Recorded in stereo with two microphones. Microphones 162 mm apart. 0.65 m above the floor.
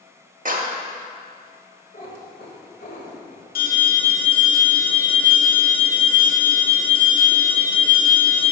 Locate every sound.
0.5 s a clap: 55° right (ahead or behind), 1.0 m
1.9 s a cat meowing: 60° left (ahead or behind), 1.4 m
3.5 s an alarm: 70° left (ahead or behind), 1.4 m